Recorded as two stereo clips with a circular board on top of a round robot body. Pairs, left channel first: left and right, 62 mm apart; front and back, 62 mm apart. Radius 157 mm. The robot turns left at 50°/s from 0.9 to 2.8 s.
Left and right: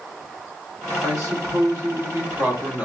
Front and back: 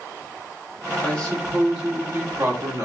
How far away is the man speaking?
About 1.9 m.